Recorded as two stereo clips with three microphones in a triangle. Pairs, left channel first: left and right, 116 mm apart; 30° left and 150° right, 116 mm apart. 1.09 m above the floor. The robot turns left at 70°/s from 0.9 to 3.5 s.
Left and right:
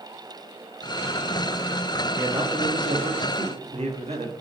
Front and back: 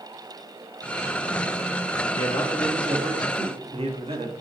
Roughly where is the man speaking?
Ahead.